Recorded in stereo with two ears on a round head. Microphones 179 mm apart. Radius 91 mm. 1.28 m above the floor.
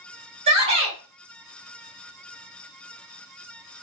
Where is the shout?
30° right (ahead or behind), 1.2 m.